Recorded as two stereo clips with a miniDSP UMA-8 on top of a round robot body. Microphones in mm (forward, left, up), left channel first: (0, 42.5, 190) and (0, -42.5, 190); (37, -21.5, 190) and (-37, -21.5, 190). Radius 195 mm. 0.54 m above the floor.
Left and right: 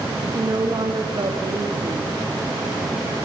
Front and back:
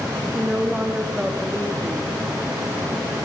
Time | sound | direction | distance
0.3 | a woman speaking | 105° right | 1.8 m